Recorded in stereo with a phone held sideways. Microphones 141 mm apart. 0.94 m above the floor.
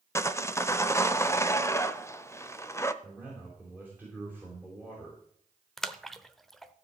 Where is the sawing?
20° left (ahead or behind), 0.7 m.